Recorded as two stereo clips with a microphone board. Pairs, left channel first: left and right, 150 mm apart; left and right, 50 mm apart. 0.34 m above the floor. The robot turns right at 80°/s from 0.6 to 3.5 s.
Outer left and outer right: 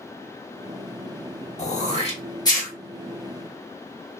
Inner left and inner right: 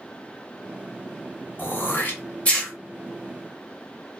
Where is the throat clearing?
40° left (ahead or behind), 0.7 m; by 2.7 s 10° left (ahead or behind), 0.7 m.